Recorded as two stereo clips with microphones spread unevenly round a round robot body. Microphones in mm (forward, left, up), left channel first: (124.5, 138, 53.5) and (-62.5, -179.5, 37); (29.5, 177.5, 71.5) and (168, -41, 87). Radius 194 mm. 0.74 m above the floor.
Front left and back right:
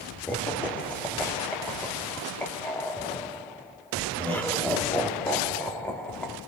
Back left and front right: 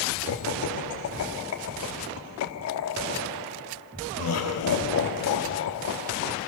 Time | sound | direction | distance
0.3 | laughter | 145° left | 1.3 m